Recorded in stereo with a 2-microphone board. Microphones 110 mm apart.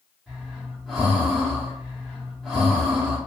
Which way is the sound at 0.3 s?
Centre (ahead or behind).